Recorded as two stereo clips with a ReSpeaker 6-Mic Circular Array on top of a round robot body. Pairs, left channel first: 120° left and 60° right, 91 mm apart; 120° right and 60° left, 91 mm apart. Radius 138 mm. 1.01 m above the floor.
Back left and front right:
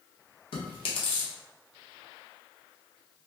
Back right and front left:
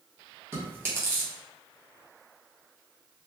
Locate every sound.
0.5 s chewing: 125° left, 1.1 m